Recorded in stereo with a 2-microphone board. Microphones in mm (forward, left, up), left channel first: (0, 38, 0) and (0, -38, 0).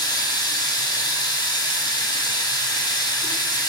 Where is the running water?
65° left (ahead or behind), 0.7 m.